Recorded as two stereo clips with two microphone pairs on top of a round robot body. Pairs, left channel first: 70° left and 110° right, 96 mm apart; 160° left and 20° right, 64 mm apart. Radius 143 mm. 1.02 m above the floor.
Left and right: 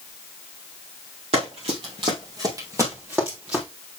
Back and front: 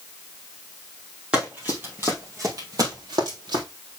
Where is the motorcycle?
No motorcycle in this recording.